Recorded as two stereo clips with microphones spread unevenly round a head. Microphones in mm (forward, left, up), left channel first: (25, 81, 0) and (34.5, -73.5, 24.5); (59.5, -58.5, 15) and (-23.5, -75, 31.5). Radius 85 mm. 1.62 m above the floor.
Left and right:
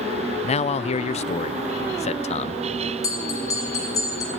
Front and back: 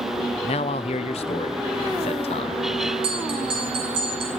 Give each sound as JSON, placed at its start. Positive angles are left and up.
{"t": 0.4, "sound": "a man speaking", "azimuth_deg": 40, "distance_m": 0.7}
{"t": 3.0, "sound": "a bell", "azimuth_deg": 170, "distance_m": 3.5}